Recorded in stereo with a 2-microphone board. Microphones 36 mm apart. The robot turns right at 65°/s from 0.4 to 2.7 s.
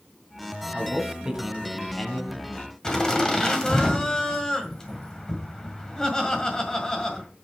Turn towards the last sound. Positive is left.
turn(degrees=20)  # may be behind; listen again after turning